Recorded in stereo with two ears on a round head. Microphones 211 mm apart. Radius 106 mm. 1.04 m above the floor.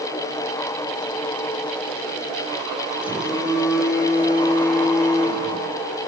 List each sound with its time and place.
3.0 s a phone buzzing: 5° right (ahead or behind), 6.5 m